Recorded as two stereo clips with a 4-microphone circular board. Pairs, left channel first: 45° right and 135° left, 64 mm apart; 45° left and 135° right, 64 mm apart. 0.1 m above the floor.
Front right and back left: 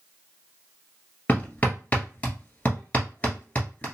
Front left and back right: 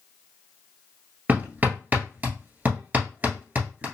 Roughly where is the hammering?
Right.